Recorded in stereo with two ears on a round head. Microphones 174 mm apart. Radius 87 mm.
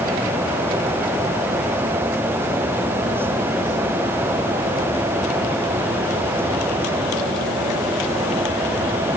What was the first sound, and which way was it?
Only background noise.